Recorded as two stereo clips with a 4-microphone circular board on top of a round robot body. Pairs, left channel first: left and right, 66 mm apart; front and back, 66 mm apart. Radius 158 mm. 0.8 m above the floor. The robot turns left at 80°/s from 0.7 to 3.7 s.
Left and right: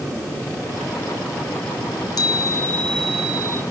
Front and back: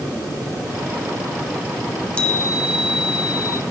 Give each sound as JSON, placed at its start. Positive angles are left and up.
{"t": 1.8, "sound": "a chime", "azimuth_deg": 100, "distance_m": 0.7}